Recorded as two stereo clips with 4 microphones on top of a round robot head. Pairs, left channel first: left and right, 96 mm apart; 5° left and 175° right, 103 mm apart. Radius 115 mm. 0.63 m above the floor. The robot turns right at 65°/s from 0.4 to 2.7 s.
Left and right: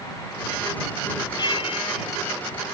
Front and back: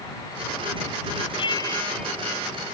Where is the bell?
40° left; by 2.1 s 90° left.